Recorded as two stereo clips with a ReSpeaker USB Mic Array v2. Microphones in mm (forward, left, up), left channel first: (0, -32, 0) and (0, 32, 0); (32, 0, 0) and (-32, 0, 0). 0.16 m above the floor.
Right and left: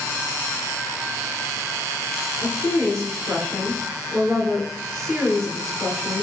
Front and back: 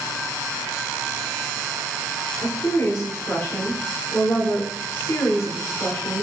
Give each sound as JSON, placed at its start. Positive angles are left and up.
{"t": 2.4, "sound": "a woman speaking", "azimuth_deg": -10, "distance_m": 1.5}